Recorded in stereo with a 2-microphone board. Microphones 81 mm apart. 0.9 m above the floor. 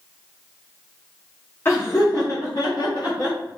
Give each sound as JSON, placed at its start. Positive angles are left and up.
{"t": 1.6, "sound": "laughter", "side_deg": 25, "distance_m": 0.9}